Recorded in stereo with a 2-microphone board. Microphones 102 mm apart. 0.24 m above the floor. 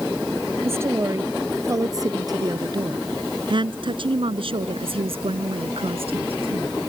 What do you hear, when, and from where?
0.6 s a woman speaking: 25° right (ahead or behind); by 6.7 s 65° right (ahead or behind)